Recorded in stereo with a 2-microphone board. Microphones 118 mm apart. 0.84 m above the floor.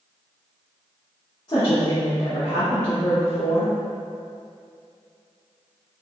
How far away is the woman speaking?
About 1.4 m.